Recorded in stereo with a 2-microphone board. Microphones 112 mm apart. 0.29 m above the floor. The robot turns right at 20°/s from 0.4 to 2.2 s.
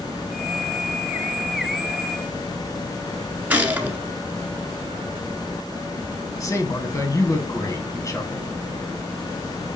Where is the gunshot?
10° right (ahead or behind), 1.7 m.